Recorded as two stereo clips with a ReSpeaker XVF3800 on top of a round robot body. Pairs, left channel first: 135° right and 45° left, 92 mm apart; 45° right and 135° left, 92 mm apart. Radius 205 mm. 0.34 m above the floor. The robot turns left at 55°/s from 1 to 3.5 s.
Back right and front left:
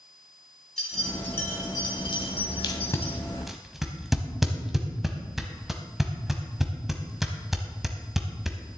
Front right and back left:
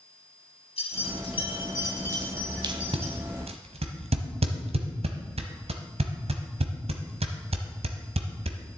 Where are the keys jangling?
50° right, 3.5 m; by 3.2 s 170° right, 3.5 m.